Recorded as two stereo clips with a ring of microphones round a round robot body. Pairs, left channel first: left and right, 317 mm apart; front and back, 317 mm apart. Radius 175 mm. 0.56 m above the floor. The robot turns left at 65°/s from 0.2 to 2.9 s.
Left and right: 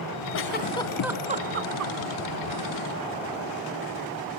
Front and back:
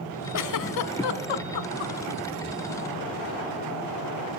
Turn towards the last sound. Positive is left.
turn(degrees=-125)